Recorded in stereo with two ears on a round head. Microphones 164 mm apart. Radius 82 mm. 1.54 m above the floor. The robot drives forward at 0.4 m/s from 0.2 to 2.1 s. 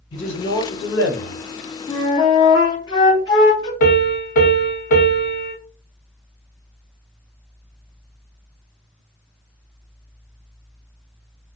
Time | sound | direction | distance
0.1 | a man speaking | 75° left (ahead or behind) | 1.2 m
1.9 | a flute | 25° left (ahead or behind) | 0.6 m
3.8 | a piano | 55° left (ahead or behind) | 0.8 m